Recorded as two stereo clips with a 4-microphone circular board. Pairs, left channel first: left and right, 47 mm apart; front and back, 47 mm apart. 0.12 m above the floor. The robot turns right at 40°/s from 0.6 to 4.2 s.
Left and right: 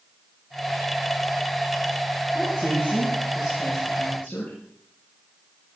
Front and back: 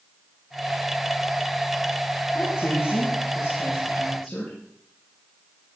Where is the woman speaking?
Straight ahead, 6 m; by 4.6 s 75° left, 6 m.